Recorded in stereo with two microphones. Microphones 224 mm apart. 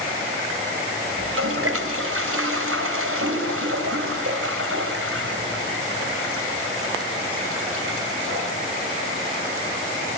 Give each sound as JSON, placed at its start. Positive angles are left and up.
{"t": 1.2, "sound": "a toilet flushing", "side_deg": -75, "distance_m": 3.5}